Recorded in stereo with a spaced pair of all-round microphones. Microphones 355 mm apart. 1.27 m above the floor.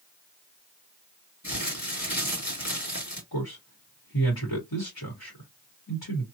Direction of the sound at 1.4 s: 50° left (ahead or behind).